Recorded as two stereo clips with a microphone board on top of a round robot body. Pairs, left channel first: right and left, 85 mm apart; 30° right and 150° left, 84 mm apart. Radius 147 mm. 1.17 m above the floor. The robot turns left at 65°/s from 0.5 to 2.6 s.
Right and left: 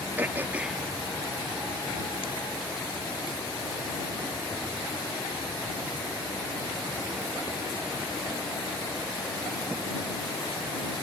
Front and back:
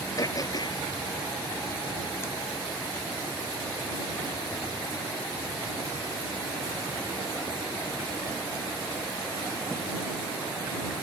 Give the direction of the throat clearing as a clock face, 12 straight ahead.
11 o'clock.